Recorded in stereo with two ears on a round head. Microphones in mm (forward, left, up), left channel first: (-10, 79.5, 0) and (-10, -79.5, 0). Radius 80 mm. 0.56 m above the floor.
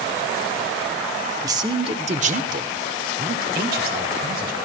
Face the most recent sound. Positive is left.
turn(degrees=-55)  # may be behind; listen again after turning